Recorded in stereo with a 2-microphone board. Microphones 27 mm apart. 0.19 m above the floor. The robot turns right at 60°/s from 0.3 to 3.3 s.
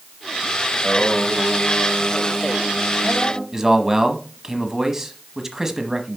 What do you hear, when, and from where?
0.7 s singing: 155° right, 5 m; by 3.4 s straight ahead, 5 m
3.5 s a man speaking: 20° right (ahead or behind), 1.0 m